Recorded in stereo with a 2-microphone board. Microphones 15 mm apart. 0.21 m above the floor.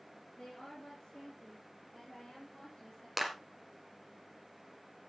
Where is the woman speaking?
45° left (ahead or behind), 3.5 m; by 3.1 s 35° left (ahead or behind), 6.5 m.